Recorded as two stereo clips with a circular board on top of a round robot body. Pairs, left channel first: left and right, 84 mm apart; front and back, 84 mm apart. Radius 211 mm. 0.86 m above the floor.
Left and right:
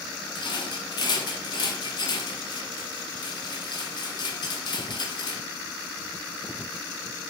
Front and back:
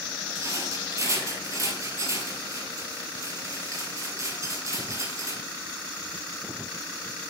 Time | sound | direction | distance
0.3 | a rattle | 125° left | 1.5 m